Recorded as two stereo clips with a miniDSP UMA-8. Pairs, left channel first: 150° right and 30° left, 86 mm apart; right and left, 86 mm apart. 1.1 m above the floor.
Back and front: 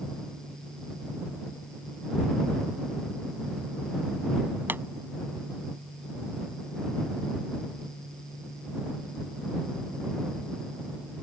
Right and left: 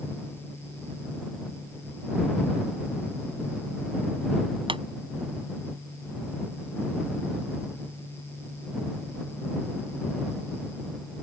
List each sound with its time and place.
4.7 s a pop: 95° left